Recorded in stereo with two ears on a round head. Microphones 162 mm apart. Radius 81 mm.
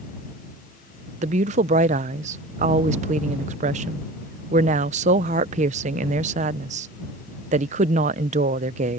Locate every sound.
1.2 s a woman speaking: 40° right (ahead or behind)